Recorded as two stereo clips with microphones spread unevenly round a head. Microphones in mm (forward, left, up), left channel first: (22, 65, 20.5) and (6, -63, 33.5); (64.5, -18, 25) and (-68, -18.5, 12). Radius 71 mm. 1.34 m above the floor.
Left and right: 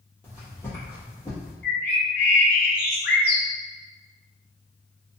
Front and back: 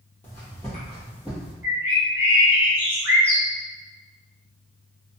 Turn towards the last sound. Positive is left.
turn(degrees=105)